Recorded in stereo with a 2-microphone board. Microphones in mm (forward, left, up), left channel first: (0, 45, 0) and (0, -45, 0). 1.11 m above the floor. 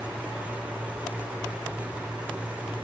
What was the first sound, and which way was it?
Only background noise.